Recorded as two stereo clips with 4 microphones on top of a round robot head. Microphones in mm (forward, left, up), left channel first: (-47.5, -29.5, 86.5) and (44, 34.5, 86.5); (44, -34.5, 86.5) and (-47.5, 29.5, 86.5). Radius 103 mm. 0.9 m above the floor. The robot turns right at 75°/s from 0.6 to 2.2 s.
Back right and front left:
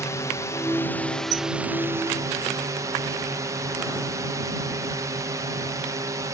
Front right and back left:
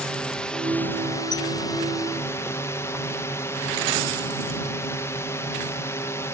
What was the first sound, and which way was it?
A drone, 110° right.